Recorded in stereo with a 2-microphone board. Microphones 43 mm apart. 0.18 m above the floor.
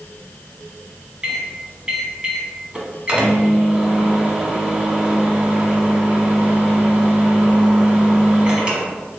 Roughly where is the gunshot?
No gunshot in this recording.